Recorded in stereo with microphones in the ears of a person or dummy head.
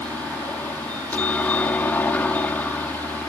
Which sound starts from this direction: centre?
A helicopter, at 0.0 s.